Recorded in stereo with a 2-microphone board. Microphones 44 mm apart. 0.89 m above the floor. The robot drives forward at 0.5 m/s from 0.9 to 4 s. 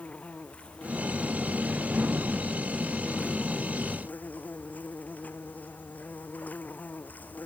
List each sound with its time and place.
0.0 s an insect: 30° left (ahead or behind); by 7.5 s 40° left (ahead or behind)